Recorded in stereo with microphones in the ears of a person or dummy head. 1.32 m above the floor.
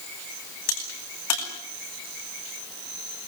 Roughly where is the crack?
Left.